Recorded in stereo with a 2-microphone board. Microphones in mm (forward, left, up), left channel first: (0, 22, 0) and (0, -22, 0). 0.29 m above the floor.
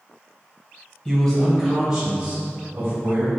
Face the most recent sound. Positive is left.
turn(degrees=-45)  # may be behind; listen again after turning